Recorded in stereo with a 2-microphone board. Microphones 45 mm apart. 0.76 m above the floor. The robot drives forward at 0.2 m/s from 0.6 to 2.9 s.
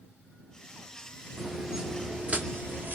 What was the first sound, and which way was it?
Footsteps, centre (ahead or behind).